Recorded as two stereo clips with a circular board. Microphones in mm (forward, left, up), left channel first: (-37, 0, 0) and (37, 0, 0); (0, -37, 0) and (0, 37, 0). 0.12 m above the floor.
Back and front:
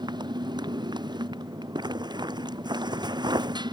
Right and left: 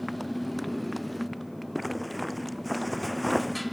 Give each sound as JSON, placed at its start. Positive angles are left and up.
{"t": 0.0, "sound": "a motorcycle", "azimuth_deg": 0}
{"t": 1.8, "sound": "a zipper", "azimuth_deg": 0}